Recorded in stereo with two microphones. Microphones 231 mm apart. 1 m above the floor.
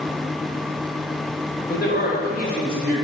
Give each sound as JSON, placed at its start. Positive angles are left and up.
{"t": 1.7, "sound": "a man speaking", "side_deg": 45, "distance_m": 4.0}